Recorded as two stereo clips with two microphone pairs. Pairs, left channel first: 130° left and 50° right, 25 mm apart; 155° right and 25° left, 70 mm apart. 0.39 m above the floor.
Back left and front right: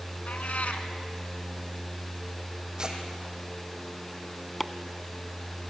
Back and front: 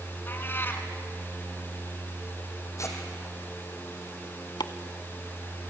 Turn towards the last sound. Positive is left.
turn(degrees=-140)